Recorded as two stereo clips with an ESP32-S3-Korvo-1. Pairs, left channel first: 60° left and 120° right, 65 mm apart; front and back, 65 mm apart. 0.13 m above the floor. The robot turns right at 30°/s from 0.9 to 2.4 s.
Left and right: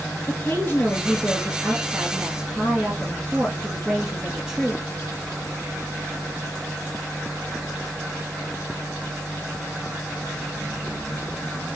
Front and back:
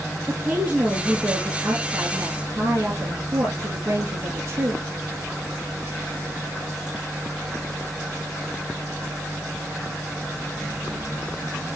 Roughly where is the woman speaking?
Left.